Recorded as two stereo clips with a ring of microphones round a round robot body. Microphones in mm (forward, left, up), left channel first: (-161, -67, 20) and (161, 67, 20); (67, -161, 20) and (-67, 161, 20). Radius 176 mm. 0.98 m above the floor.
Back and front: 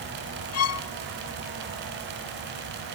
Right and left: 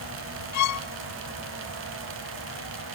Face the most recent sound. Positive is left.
turn(degrees=-110)